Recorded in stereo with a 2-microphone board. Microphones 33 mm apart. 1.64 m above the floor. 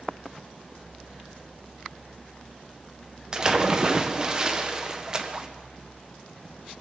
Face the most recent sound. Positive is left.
turn(degrees=-20)  # may be behind; listen again after turning